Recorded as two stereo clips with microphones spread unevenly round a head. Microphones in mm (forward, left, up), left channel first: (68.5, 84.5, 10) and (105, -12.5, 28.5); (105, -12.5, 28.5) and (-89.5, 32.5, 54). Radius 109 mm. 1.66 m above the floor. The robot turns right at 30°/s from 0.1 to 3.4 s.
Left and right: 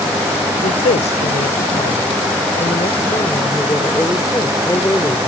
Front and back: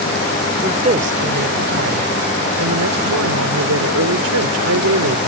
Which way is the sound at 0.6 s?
105° left.